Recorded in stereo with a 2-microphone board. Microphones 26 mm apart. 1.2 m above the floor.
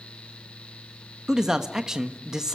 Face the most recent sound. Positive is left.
turn(degrees=-25)  # may be behind; listen again after turning